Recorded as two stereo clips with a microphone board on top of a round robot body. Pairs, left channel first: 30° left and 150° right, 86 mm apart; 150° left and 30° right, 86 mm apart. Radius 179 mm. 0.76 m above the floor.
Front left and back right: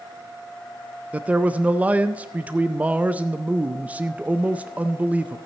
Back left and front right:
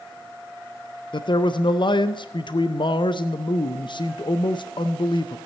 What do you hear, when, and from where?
1.1 s a man speaking: 135° left, 0.6 m